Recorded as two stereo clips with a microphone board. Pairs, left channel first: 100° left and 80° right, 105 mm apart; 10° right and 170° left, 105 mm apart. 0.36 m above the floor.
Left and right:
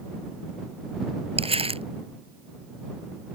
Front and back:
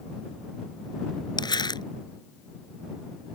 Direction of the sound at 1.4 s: 55° right.